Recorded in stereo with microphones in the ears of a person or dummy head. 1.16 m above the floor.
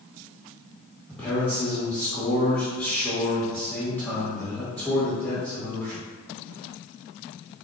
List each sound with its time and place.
1.1 s a man speaking: 5° left (ahead or behind), 1.4 m